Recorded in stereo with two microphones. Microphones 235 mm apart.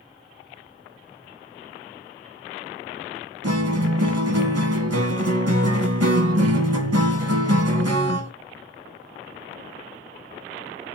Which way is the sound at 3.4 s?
80° right.